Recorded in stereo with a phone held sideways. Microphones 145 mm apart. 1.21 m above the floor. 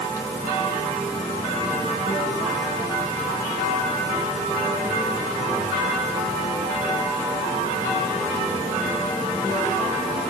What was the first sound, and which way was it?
Only background noise.